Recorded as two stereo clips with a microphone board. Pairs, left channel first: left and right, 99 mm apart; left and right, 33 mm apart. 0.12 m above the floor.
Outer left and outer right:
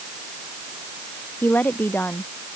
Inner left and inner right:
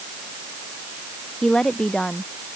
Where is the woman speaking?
15° left (ahead or behind).